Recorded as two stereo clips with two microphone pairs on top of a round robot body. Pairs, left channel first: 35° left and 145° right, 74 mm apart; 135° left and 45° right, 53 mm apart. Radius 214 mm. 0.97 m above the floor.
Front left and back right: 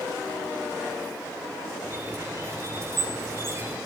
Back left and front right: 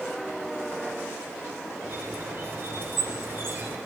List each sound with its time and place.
1.8 s a squeak: 90° right, 3.5 m